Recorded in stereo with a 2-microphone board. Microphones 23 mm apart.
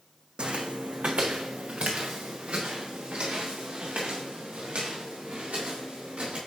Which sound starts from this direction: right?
Footsteps, at 0.4 s.